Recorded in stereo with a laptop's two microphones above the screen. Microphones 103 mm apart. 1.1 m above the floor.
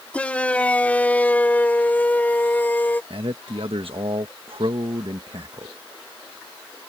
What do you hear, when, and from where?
0.1 s a shout: 15° left (ahead or behind); by 3.0 s 20° left (ahead or behind)
3.1 s a man speaking: 70° right (ahead or behind)